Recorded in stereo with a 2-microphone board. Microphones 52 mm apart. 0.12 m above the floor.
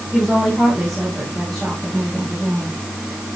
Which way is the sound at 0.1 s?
Centre (ahead or behind).